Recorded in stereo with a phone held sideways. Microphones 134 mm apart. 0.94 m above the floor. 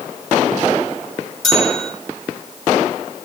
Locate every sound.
1.4 s a bell: centre (ahead or behind), 5.5 m